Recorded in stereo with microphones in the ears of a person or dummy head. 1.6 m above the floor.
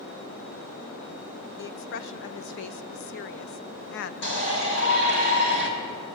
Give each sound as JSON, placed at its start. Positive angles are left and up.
{"t": 1.6, "sound": "a woman speaking", "side_deg": 65, "distance_m": 0.8}
{"t": 4.2, "sound": "a shout", "side_deg": 70, "distance_m": 5.5}